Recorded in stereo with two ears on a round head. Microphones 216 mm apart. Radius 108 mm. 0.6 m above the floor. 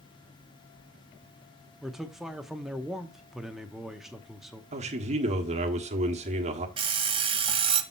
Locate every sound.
1.8 s a man speaking: centre (ahead or behind), 0.7 m
4.7 s a man speaking: 30° right (ahead or behind), 1.3 m
6.8 s an alarm clock: 25° right (ahead or behind), 1.2 m